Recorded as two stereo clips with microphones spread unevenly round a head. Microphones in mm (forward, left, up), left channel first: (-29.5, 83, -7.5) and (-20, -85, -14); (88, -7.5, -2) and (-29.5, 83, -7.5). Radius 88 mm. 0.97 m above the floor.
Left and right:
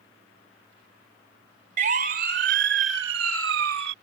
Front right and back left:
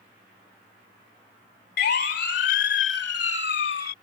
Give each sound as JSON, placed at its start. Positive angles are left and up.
{"t": 1.8, "sound": "a siren", "azimuth_deg": -40}